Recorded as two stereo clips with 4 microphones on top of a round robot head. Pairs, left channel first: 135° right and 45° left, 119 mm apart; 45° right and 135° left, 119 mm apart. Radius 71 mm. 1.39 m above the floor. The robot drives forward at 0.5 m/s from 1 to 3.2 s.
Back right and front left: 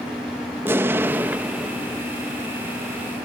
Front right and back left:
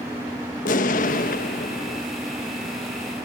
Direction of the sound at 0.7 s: 25° right.